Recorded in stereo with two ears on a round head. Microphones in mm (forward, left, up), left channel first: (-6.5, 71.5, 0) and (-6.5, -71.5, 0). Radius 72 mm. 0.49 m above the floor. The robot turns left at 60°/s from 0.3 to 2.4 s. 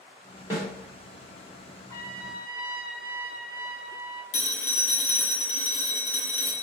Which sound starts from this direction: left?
A phone ringing, at 4.3 s.